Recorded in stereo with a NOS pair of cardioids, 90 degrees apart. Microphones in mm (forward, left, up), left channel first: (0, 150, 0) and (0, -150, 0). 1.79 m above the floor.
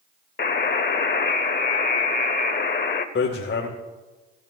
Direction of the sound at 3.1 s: 45° left.